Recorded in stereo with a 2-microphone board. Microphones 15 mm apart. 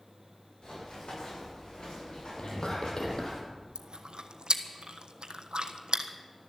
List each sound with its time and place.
0.6 s running footsteps: 65° left (ahead or behind), 8 m; by 3.4 s 60° left (ahead or behind), 9 m
2.4 s whispering: 70° left (ahead or behind), 3 m
3.8 s chewing: 75° right (ahead or behind), 1.2 m